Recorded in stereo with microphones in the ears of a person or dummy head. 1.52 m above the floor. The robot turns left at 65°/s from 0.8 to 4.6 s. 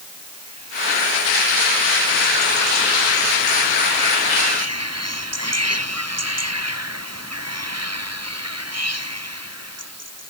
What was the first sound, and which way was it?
Only background noise.